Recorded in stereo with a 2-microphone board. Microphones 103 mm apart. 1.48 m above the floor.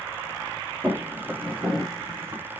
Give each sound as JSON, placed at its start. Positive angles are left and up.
{"t": 0.8, "sound": "footsteps", "side_deg": -10, "distance_m": 1.5}